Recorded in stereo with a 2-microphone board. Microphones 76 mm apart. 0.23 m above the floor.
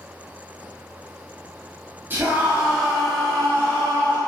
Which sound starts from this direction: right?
A scream, at 2.1 s.